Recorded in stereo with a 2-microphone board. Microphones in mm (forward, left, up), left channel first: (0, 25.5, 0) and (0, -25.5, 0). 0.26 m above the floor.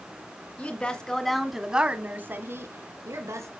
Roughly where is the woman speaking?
Left.